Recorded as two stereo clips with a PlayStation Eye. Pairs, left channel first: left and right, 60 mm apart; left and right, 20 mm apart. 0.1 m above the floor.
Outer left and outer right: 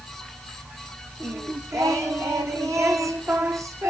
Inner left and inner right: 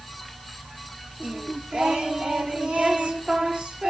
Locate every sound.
1.2 s singing: 75° right (ahead or behind), 3 m